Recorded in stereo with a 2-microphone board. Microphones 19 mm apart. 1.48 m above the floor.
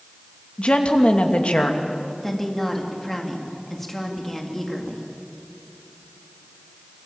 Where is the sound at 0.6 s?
65° left (ahead or behind), 2.5 m.